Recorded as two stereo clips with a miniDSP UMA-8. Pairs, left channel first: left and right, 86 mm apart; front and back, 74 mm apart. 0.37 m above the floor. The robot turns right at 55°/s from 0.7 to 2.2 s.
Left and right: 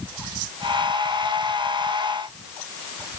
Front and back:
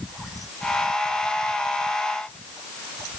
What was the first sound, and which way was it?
Only background noise.